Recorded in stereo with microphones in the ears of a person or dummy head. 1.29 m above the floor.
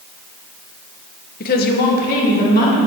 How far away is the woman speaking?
About 0.9 m.